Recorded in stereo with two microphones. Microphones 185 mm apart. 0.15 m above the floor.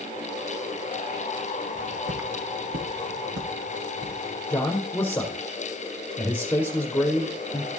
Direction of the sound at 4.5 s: 10° left (ahead or behind).